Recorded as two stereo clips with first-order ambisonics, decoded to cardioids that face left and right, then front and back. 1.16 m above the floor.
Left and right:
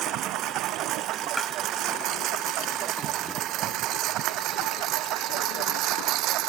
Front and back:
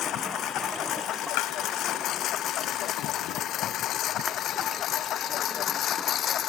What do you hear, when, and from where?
0.0 s a lawn mower: 45° right; by 6.5 s 55° right
1.4 s tapping: straight ahead